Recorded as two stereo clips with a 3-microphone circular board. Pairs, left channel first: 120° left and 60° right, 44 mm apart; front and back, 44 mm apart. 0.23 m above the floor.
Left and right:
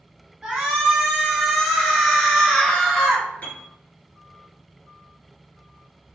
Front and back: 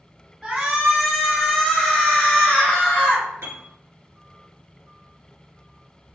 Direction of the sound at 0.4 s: 120° right.